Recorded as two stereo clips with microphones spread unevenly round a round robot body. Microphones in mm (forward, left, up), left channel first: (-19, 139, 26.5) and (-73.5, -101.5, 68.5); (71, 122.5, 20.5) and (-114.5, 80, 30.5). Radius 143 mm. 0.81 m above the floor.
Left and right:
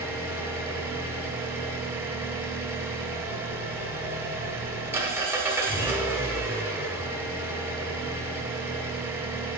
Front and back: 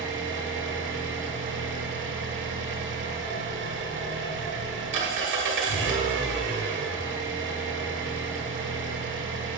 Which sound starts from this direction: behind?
An engine running, at 0.0 s.